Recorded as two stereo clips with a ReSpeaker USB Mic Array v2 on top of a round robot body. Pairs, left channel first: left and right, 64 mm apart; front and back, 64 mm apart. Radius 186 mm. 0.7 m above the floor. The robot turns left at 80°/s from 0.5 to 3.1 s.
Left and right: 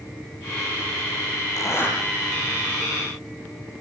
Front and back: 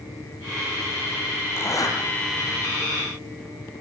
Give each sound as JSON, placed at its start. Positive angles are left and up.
{"t": 1.6, "sound": "a zipper", "azimuth_deg": 55, "distance_m": 6.5}